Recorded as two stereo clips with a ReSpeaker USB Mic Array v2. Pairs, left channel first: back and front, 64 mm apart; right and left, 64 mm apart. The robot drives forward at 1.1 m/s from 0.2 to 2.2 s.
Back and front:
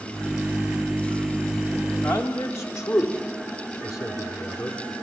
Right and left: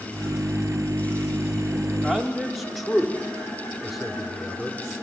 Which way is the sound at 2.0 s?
175° left.